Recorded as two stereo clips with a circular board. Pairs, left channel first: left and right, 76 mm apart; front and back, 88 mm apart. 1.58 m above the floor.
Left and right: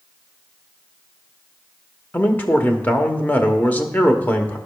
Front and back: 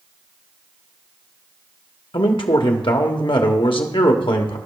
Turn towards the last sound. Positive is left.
turn(degrees=20)